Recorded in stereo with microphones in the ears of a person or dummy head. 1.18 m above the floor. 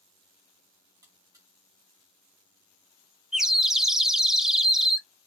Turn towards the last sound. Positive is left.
turn(degrees=-5)  # may be behind; listen again after turning